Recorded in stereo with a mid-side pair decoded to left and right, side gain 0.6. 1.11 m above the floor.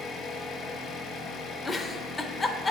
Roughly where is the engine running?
Ahead left.